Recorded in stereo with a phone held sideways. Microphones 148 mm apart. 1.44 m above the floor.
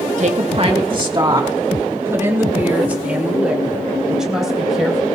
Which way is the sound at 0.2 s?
50° right (ahead or behind).